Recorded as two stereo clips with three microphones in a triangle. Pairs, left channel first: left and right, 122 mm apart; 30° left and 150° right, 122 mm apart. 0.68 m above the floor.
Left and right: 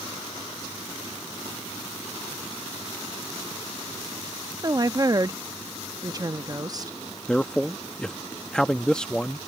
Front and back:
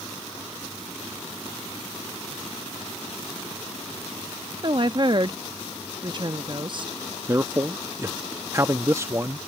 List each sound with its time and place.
4.6 s a woman speaking: 130° right
7.3 s a man speaking: 170° left